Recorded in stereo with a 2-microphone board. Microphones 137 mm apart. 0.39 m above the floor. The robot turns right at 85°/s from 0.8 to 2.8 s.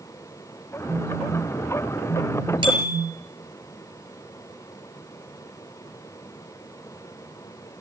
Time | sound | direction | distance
0.9 | a phone buzzing | 50° right | 7 m
2.6 | a bicycle bell | 35° right (ahead or behind) | 6 m